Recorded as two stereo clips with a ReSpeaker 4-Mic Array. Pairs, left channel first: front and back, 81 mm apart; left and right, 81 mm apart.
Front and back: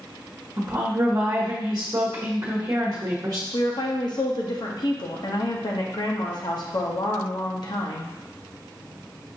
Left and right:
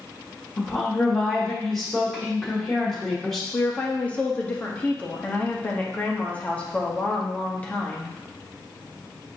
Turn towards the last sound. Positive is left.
turn(degrees=20)